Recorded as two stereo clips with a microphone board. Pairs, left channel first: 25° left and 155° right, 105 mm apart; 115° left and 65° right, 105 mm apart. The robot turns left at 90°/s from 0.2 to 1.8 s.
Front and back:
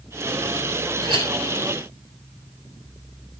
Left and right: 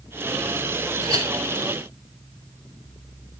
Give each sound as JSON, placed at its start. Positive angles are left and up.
{"t": 1.0, "sound": "a clink", "azimuth_deg": -105, "distance_m": 3.0}